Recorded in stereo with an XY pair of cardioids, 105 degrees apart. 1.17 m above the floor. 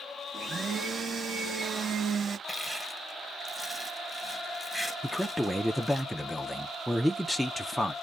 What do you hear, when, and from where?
0.3 s a blender: 40° right, 0.8 m
2.5 s crushing: 10° right, 1.3 m
5.0 s a man speaking: straight ahead, 0.5 m